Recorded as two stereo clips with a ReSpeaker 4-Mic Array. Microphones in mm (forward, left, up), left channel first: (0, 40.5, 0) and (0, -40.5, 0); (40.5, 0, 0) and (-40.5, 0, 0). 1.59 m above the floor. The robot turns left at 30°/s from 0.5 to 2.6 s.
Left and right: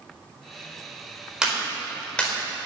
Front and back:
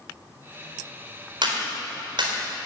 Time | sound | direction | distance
1.4 | a clap | 170° right | 4 m